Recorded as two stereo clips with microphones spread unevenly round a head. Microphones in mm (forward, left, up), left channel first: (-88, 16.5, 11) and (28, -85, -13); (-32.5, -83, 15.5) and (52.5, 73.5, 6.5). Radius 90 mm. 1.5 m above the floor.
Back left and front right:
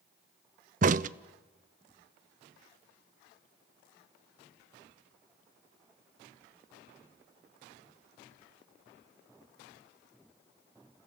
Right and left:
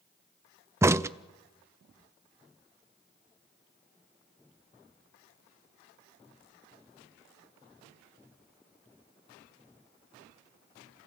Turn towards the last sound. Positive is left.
turn(degrees=-10)